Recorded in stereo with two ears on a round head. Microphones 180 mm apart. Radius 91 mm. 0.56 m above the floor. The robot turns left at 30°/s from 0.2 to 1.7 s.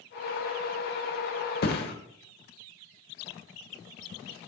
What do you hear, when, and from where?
1.6 s a thud: 50° left (ahead or behind), 0.8 m; by 1.9 s 55° left (ahead or behind), 0.8 m